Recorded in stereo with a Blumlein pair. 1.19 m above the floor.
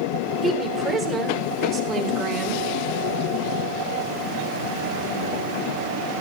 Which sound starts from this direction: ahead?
A woman speaking, at 0.4 s.